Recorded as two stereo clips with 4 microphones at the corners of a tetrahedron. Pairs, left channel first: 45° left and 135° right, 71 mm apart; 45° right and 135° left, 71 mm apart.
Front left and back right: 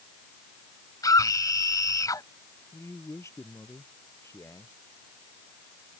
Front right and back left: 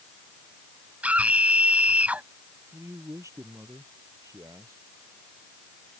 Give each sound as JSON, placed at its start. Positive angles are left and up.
{"t": 1.0, "sound": "a scream", "azimuth_deg": 65}
{"t": 2.7, "sound": "a man speaking", "azimuth_deg": 90}